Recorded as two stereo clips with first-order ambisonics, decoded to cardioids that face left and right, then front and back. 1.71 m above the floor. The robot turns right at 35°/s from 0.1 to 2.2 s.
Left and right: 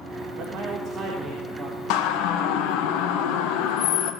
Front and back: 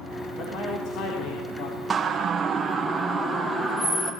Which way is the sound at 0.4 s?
50° right.